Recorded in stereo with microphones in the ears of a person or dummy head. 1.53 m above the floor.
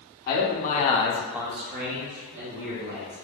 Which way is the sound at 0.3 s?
55° left (ahead or behind).